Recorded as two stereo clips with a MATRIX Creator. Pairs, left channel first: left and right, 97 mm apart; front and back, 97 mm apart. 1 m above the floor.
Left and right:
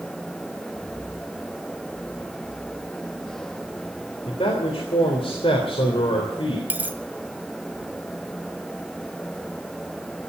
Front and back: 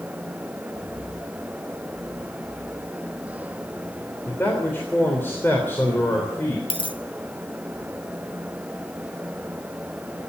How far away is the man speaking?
About 3.5 m.